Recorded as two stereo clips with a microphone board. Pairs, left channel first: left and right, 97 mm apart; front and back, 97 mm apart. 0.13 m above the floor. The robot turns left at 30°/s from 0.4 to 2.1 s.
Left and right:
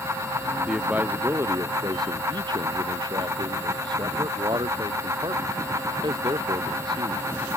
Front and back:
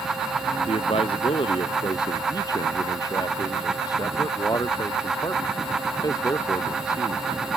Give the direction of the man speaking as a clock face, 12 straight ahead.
12 o'clock.